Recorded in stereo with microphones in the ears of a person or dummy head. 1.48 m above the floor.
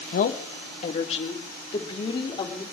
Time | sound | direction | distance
0.1 | a woman speaking | 55° left (ahead or behind) | 1.5 m